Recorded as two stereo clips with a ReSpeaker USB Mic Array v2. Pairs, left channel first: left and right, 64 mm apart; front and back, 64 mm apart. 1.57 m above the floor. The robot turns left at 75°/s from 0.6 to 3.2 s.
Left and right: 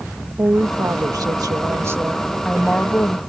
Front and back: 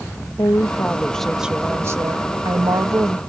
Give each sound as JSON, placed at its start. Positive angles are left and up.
{"t": 0.4, "sound": "a woman speaking", "azimuth_deg": -40}